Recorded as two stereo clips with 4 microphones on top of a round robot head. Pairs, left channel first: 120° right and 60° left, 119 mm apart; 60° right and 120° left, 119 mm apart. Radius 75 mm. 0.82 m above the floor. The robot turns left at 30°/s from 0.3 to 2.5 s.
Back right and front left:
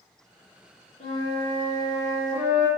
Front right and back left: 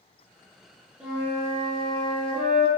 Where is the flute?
155° right, 0.7 m; by 2.7 s 160° left, 0.7 m.